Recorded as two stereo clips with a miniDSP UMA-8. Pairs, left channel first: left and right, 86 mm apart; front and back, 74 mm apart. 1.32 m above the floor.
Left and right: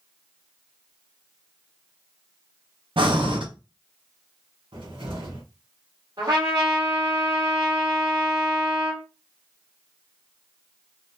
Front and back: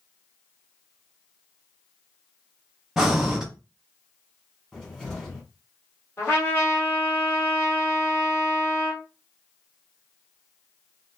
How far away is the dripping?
I don't hear dripping.